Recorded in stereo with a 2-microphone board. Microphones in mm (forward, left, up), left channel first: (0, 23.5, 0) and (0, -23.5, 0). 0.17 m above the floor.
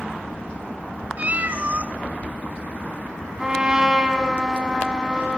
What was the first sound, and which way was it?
A cat meowing, 35° right (ahead or behind).